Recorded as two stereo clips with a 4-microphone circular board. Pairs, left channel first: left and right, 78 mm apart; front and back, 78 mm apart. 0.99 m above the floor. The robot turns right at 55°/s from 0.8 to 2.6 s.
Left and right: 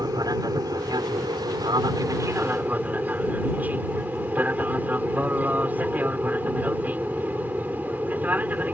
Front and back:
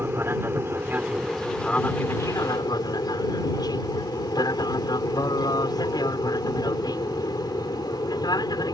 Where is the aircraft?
120° right; by 8.8 s 25° right.